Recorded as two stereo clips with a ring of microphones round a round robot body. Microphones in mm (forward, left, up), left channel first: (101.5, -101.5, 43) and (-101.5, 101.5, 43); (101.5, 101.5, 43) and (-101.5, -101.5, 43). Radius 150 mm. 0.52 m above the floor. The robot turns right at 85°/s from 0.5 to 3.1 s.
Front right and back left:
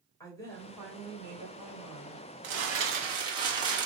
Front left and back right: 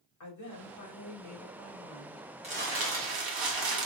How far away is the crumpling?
About 1.7 m.